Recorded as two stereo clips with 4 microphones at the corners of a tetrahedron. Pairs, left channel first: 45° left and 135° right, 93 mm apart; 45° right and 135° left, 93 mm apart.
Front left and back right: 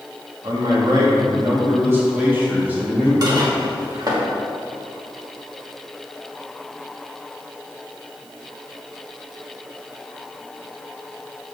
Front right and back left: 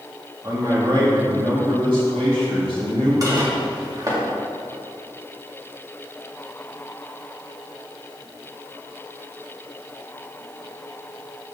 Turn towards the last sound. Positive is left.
turn(degrees=180)